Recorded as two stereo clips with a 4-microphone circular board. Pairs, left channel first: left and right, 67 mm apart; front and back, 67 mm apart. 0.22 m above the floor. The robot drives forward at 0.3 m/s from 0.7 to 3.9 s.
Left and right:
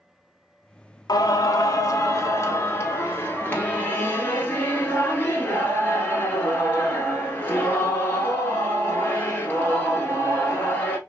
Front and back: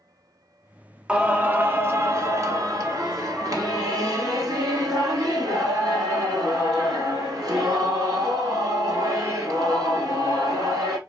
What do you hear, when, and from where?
1.1 s singing: 105° left, 0.5 m; by 11.0 s 155° left, 1.1 m